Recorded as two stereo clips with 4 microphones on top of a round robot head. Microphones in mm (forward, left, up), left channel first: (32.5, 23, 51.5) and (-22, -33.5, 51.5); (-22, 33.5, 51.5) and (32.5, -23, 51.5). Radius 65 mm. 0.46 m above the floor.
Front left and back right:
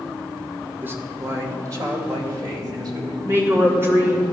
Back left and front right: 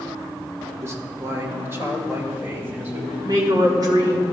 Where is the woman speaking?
80° right, 2.5 m.